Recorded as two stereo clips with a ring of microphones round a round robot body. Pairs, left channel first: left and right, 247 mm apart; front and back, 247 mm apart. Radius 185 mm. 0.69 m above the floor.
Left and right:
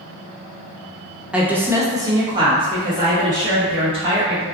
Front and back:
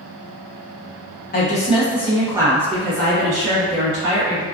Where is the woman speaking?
5° right, 0.7 m; by 4.4 s 160° right, 1.4 m.